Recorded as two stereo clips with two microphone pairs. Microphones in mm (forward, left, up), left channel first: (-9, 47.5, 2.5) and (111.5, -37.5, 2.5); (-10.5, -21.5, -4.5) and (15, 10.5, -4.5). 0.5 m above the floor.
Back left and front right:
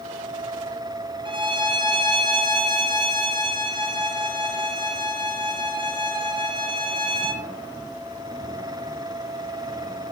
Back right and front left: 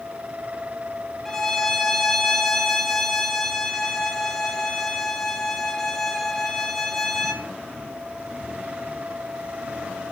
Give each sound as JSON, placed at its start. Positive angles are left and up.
{"t": 1.2, "sound": "a violin", "azimuth_deg": -55, "distance_m": 1.0}